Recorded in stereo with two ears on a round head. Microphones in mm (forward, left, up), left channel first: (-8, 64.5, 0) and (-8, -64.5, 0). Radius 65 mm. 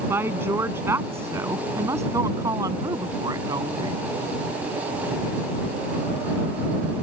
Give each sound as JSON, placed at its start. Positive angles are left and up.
{"t": 0.1, "sound": "a woman speaking", "side_deg": -15}